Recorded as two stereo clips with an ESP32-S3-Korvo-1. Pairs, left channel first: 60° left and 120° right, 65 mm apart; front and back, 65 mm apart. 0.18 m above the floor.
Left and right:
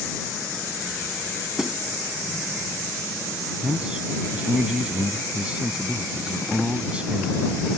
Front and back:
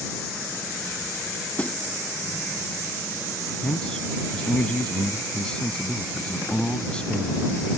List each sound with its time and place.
1.6 s a snare drum: 45° right
3.6 s a man speaking: 60° right